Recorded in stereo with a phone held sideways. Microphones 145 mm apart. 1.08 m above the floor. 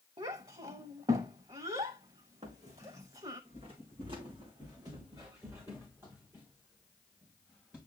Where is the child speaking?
40° right (ahead or behind), 0.9 m.